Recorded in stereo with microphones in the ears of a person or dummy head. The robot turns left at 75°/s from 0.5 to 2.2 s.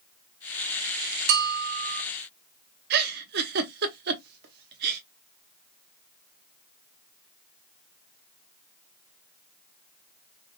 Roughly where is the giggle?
Right.